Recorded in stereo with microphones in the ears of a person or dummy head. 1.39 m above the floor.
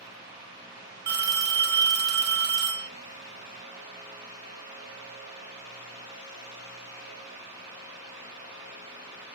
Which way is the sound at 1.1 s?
50° right (ahead or behind).